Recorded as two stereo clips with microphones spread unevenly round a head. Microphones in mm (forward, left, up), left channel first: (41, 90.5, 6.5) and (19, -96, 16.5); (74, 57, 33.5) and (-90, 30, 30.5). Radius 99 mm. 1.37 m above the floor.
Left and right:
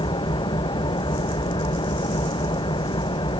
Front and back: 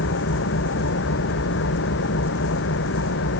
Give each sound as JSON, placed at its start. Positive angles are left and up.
{"t": 0.0, "sound": "an engine running", "azimuth_deg": 15}